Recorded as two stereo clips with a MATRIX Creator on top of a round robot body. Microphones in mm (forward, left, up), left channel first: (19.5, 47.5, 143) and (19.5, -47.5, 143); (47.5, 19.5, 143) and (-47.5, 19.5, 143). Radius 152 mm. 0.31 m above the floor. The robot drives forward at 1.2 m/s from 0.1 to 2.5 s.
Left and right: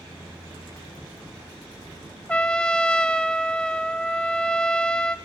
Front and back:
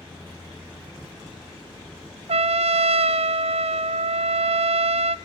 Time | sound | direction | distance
2.3 | a trumpet | 170° left | 0.5 m